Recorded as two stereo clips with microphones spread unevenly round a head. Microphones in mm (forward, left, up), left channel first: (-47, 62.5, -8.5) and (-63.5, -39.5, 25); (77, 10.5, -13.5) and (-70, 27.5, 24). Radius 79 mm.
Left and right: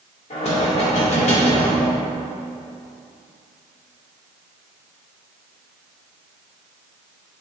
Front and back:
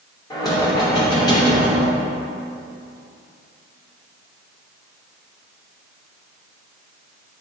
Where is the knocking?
60° left, 2.5 m.